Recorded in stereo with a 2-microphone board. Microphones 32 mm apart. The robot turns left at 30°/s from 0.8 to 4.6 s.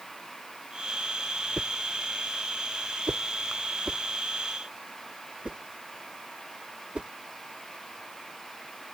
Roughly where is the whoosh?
Right.